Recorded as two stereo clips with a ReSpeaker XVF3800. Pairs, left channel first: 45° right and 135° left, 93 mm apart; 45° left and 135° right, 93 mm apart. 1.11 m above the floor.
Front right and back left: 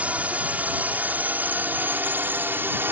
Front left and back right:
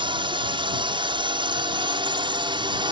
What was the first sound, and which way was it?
A drone, 150° right.